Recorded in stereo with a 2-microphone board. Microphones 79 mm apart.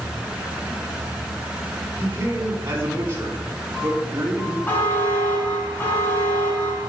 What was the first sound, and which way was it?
A man speaking, 35° right (ahead or behind).